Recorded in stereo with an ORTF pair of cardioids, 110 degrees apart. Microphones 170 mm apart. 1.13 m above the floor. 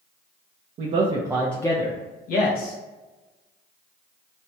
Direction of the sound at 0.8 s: 55° right.